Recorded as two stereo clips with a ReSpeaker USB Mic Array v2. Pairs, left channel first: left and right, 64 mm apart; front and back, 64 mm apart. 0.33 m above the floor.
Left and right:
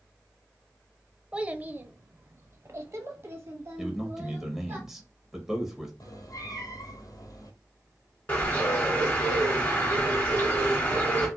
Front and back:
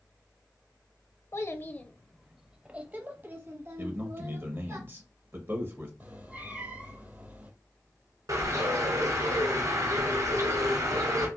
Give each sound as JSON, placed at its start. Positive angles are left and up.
{"t": 1.3, "sound": "a child speaking", "azimuth_deg": -25, "distance_m": 0.6}
{"t": 3.8, "sound": "a man speaking", "azimuth_deg": -170, "distance_m": 1.4}
{"t": 6.0, "sound": "a cat meowing", "azimuth_deg": 115, "distance_m": 1.1}
{"t": 8.3, "sound": "a bird", "azimuth_deg": 155, "distance_m": 2.5}